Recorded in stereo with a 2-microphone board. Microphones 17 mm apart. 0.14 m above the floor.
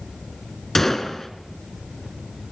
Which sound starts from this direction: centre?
A gunshot, at 0.8 s.